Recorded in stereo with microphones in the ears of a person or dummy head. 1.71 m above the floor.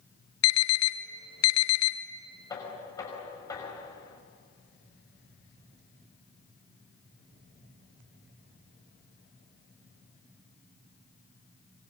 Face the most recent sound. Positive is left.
turn(degrees=25)  # may be behind; listen again after turning